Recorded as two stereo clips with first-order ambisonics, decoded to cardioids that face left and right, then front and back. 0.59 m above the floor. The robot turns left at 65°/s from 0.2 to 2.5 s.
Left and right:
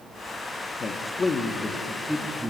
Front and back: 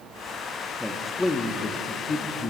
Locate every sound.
0.8 s a man speaking: 85° left, 0.9 m; by 2.5 s 30° right, 0.9 m